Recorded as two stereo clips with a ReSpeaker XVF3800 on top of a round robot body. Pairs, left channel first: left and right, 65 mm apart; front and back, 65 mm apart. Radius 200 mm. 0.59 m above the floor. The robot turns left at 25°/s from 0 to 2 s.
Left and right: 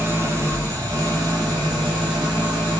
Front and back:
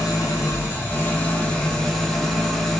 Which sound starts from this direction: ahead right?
An engine running, at 0.0 s.